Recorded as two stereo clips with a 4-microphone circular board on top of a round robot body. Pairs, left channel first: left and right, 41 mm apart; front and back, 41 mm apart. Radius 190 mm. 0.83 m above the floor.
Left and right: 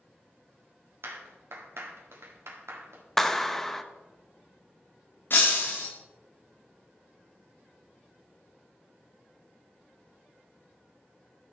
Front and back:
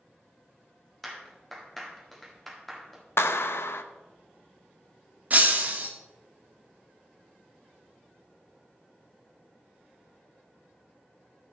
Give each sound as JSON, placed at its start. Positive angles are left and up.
{"t": 1.0, "sound": "a clap", "azimuth_deg": -85, "distance_m": 2.0}
{"t": 3.2, "sound": "a clap", "azimuth_deg": 5, "distance_m": 0.9}
{"t": 5.3, "sound": "breaking glass", "azimuth_deg": 130, "distance_m": 0.6}